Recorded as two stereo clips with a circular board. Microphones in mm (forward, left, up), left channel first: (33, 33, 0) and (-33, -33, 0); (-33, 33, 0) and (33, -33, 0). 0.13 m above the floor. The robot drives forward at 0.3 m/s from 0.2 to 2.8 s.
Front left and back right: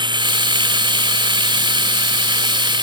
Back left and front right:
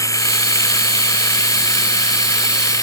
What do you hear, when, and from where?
0.0 s running water: 170° right